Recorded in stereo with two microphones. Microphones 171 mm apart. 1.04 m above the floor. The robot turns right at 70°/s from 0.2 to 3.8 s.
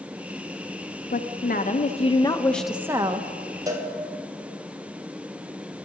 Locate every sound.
1.1 s a woman speaking: 75° left, 0.9 m; by 3.3 s 135° right, 0.9 m
3.7 s a cowbell: 20° right (ahead or behind), 1.6 m; by 3.9 s 10° right (ahead or behind), 1.6 m